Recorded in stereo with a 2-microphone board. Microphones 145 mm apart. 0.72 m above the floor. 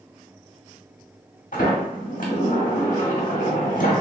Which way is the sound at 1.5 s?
70° left (ahead or behind).